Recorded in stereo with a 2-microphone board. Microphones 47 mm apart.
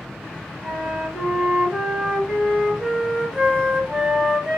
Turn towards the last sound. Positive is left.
turn(degrees=-15)  # may be behind; listen again after turning